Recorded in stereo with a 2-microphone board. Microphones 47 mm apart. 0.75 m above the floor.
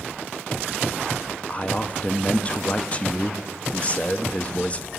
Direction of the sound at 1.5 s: 30° left (ahead or behind).